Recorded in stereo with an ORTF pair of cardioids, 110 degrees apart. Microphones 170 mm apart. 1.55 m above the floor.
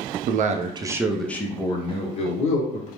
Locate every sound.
0.3 s a man speaking: 55° right, 0.6 m; by 2.9 s 45° left, 1.2 m